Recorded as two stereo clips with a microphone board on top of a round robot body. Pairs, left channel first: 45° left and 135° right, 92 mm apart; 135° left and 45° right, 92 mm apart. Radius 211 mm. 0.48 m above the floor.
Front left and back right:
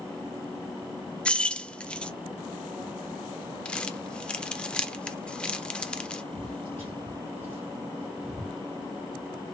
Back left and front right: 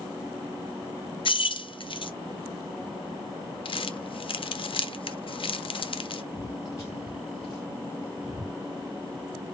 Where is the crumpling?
120° left, 0.6 m.